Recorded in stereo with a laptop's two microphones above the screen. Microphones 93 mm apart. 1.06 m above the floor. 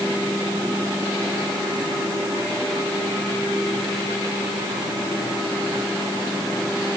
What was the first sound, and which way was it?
Only background noise.